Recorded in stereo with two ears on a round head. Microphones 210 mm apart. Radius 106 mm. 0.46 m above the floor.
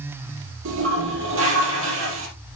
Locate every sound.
0.7 s a toilet flushing: 60° right (ahead or behind), 4 m